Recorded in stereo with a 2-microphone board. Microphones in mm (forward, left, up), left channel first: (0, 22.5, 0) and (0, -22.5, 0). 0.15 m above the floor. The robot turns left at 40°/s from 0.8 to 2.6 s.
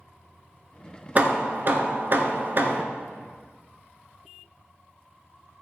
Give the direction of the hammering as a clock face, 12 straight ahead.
2 o'clock.